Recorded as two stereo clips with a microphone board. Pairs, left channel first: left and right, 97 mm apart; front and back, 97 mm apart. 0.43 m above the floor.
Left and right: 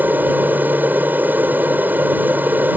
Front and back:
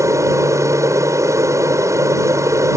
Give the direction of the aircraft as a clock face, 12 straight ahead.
5 o'clock.